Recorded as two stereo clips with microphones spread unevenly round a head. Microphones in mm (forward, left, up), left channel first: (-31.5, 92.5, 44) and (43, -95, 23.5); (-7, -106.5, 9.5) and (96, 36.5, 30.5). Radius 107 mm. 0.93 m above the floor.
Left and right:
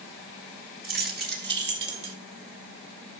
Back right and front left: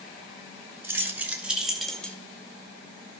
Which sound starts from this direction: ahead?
Keys jangling, at 0.8 s.